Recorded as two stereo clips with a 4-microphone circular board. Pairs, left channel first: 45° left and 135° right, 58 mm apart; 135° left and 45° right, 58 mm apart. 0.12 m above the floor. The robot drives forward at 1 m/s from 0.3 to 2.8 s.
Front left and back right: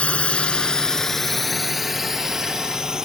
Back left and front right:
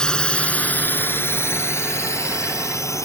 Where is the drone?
75° left; by 3.0 s 145° left.